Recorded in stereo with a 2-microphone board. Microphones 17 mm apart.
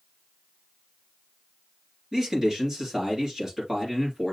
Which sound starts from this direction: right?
A man speaking, at 2.1 s.